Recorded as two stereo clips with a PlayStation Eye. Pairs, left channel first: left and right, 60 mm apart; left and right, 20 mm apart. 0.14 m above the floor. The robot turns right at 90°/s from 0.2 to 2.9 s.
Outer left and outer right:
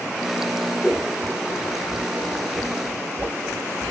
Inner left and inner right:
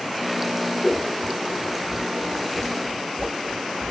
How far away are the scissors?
About 1.9 m.